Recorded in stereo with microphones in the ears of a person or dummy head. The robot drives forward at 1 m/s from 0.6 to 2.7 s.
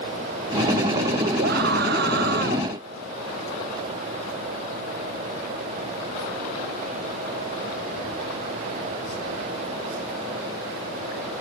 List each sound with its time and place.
1.4 s a scream: 55° right (ahead or behind); by 2.7 s 50° right (ahead or behind)